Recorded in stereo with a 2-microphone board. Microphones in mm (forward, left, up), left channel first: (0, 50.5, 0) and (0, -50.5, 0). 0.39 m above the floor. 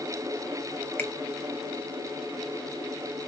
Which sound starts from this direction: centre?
A finger snap, at 1.0 s.